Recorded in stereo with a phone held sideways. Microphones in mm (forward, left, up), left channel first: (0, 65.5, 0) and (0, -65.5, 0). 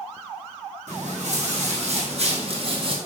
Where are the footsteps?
65° right (ahead or behind), 3 m; by 3.0 s 45° right (ahead or behind), 1.8 m.